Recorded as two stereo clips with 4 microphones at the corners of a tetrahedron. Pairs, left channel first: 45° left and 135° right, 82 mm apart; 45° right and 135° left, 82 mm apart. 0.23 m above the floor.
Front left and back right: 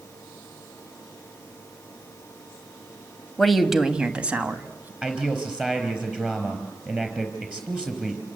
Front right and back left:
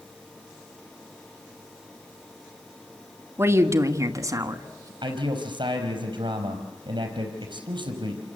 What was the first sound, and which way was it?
A woman speaking, 130° left.